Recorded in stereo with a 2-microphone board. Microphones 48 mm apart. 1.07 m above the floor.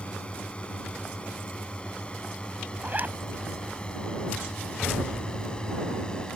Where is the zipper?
35° right (ahead or behind).